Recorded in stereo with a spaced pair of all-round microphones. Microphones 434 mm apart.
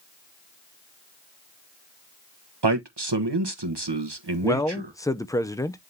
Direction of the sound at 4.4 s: 10° left (ahead or behind).